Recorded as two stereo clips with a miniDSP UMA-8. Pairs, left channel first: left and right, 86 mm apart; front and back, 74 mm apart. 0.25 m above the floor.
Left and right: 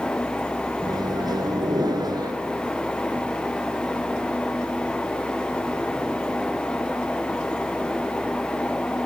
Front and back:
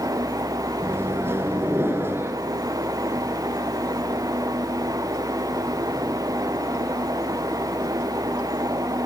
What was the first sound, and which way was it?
A microwave, 125° right.